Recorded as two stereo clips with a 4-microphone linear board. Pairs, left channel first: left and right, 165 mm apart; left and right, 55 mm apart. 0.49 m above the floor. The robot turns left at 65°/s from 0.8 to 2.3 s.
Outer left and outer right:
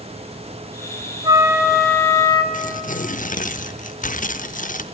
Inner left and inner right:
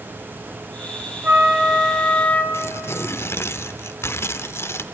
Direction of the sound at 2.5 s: 50° left (ahead or behind).